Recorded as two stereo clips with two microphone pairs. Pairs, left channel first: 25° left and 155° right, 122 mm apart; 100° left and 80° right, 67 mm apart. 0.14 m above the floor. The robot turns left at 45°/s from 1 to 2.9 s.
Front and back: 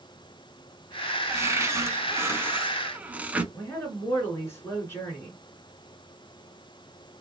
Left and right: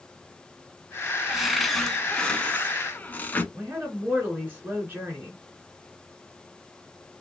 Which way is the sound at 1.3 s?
135° right.